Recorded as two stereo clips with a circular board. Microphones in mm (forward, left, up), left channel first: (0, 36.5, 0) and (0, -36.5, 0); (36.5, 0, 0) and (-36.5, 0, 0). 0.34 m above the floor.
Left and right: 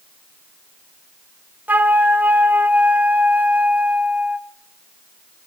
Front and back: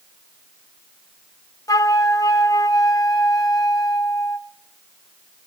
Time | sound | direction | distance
1.7 | a flute | 30° right | 1.0 m